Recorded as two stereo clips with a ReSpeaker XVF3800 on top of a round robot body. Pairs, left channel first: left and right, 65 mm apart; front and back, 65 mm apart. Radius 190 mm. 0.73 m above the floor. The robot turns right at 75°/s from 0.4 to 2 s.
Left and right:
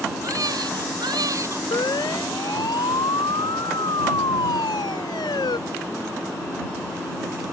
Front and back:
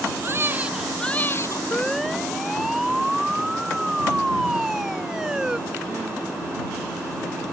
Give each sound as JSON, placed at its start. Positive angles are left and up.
{"t": 0.2, "sound": "a baby crying", "azimuth_deg": -125}
{"t": 1.7, "sound": "a siren", "azimuth_deg": 70}